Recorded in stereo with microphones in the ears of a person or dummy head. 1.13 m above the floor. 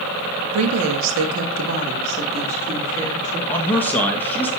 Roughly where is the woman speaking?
Right.